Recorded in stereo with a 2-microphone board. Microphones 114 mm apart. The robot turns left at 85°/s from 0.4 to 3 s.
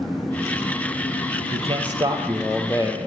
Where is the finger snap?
No finger snap in this recording.